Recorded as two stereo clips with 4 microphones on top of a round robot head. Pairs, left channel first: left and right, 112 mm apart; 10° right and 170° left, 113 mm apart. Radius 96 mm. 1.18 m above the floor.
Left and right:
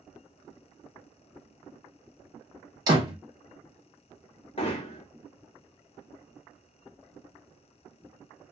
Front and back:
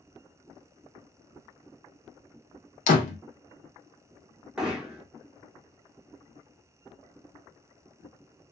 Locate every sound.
2.9 s a door slam: 25° right, 0.5 m
4.6 s hammering: 95° left, 0.7 m